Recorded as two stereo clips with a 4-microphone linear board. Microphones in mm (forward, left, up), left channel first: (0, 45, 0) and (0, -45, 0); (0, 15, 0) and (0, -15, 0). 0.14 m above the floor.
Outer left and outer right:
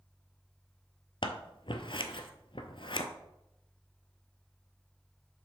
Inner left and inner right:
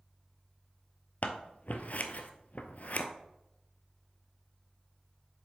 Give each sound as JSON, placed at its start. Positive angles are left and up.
{"t": 1.2, "sound": "scissors", "side_deg": 65, "distance_m": 0.7}